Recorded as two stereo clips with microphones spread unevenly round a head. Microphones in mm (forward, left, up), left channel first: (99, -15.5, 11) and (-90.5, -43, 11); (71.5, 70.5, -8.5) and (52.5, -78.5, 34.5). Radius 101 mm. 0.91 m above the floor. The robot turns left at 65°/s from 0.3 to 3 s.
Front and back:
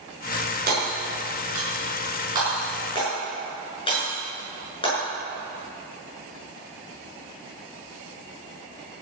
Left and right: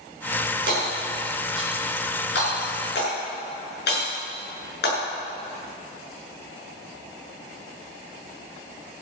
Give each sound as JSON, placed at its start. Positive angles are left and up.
{"t": 0.7, "sound": "hammering", "azimuth_deg": -130, "distance_m": 7.0}